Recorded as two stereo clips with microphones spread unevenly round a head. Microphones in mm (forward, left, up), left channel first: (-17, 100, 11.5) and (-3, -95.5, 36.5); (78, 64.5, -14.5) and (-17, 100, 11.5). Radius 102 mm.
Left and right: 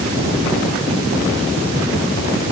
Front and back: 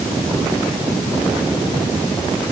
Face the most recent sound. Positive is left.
No sound to turn to.